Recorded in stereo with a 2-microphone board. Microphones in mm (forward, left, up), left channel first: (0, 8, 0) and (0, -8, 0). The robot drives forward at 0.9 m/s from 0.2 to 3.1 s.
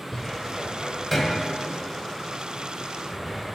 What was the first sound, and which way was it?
A cupboard door, 10° left (ahead or behind).